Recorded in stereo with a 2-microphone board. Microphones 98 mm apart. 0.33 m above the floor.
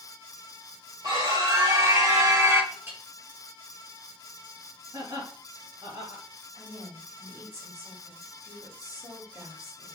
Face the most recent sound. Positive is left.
turn(degrees=-35)  # may be behind; listen again after turning